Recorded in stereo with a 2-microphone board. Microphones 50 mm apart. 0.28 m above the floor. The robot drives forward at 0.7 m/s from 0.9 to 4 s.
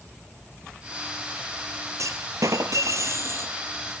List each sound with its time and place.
2.0 s a clunk: 75° right (ahead or behind), 1.1 m; by 3.5 s 55° right (ahead or behind), 1.3 m